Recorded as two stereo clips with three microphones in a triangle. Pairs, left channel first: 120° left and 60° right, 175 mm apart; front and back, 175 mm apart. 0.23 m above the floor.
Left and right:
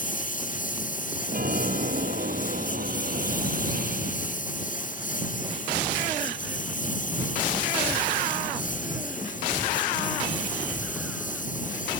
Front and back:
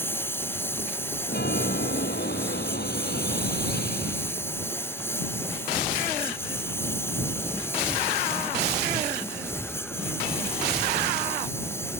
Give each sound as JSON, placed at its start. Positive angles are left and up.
{"t": 0.0, "sound": "a lawn mower", "azimuth_deg": 80}
{"t": 1.3, "sound": "a chime", "azimuth_deg": -25}